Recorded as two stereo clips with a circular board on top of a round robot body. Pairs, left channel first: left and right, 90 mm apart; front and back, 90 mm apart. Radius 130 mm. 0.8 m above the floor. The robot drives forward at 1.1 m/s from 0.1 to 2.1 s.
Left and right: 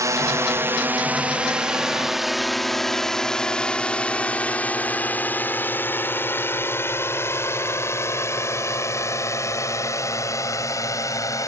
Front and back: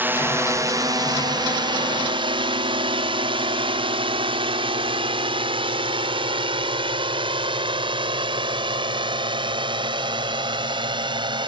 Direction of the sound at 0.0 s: 120° right.